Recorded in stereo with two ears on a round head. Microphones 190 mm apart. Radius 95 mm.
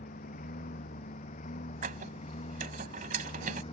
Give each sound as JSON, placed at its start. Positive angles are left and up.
{"t": 0.0, "sound": "a lawn mower", "side_deg": 40}
{"t": 1.8, "sound": "a squeak", "side_deg": -40}